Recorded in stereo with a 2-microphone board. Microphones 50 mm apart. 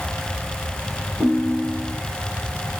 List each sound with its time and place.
1.2 s a ringtone: 5° right (ahead or behind), 3 m